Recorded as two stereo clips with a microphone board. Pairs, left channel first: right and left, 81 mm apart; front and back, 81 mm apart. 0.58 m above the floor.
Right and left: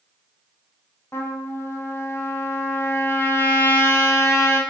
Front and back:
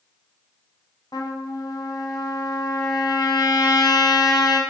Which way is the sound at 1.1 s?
35° right.